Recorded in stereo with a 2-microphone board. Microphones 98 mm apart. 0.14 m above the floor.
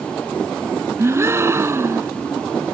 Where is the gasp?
30° right (ahead or behind).